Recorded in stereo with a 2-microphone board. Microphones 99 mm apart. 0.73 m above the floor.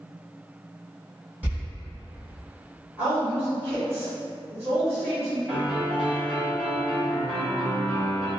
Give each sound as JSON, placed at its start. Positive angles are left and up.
{"t": 1.4, "sound": "a door slam", "side_deg": -20, "distance_m": 1.8}
{"t": 3.0, "sound": "a woman speaking", "side_deg": -25, "distance_m": 1.5}
{"t": 5.5, "sound": "a piano", "side_deg": 5, "distance_m": 1.9}